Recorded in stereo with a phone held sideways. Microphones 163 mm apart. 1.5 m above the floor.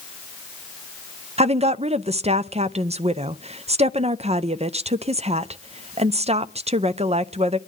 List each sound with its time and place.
1.4 s a woman speaking: 40° right (ahead or behind), 0.6 m